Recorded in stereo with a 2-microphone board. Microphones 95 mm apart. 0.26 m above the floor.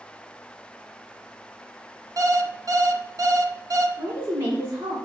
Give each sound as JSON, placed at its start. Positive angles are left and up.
{"t": 2.2, "sound": "an alarm clock", "side_deg": -40, "distance_m": 0.7}
{"t": 4.0, "sound": "a woman speaking", "side_deg": -25, "distance_m": 3.5}